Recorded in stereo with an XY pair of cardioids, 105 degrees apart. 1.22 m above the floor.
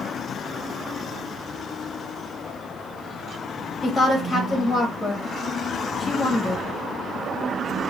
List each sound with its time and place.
3.8 s a woman speaking: 15° left, 1.0 m